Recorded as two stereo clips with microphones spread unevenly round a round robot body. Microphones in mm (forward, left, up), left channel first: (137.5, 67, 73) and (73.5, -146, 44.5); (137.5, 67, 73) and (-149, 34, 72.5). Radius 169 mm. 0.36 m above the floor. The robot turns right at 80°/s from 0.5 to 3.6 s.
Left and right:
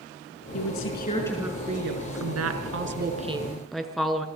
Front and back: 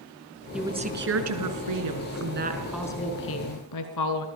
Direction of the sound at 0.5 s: 100° left.